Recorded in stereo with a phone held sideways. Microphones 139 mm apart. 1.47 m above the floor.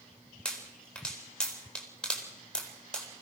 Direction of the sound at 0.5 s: 5° left (ahead or behind).